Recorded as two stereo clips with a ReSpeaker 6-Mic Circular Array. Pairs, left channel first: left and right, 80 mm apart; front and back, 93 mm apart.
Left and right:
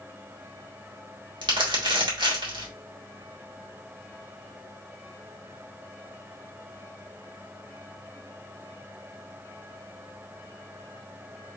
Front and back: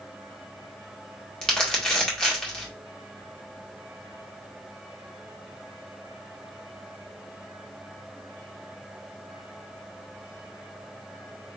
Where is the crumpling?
80° right, 1.8 m.